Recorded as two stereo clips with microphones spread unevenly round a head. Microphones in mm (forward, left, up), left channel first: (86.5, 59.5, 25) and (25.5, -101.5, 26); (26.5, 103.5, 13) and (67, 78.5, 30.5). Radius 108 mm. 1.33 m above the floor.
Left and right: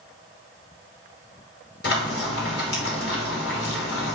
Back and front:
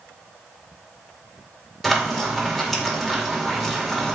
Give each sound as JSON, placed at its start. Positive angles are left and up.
{"t": 1.8, "sound": "frying", "azimuth_deg": 55, "distance_m": 3.0}